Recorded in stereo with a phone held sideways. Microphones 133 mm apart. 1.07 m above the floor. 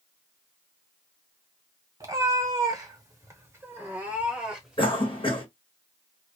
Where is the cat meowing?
25° right (ahead or behind), 1.1 m; by 4.9 s 5° right (ahead or behind), 1.5 m.